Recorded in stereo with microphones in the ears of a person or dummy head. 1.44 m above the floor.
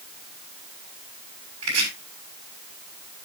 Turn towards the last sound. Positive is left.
turn(degrees=-85)